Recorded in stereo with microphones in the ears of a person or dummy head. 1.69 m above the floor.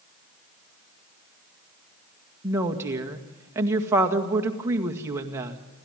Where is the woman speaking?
20° right (ahead or behind), 1.9 m.